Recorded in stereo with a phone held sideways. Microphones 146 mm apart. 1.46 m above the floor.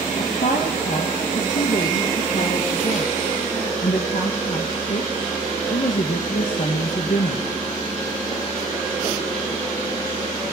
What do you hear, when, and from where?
0.2 s a woman speaking: 65° left (ahead or behind), 1.2 m